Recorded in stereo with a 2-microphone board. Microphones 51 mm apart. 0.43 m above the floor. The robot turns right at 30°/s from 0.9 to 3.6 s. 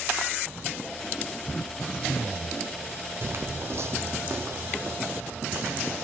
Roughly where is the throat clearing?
Behind left.